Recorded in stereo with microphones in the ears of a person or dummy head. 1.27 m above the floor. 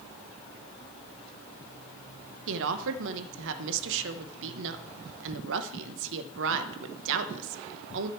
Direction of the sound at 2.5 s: 75° right (ahead or behind).